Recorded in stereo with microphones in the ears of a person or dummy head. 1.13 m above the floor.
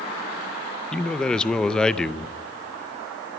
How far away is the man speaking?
About 0.6 m.